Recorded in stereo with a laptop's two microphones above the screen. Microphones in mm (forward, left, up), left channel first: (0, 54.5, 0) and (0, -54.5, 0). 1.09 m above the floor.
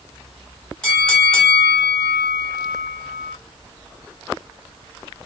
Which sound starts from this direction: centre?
A bell, at 0.8 s.